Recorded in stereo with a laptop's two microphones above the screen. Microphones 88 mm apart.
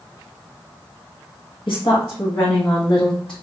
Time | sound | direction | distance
1.7 | a woman speaking | 65° left (ahead or behind) | 1.0 m